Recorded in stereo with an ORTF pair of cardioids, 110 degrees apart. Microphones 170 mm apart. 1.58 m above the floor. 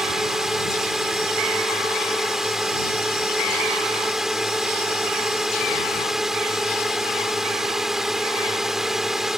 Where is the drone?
Straight ahead.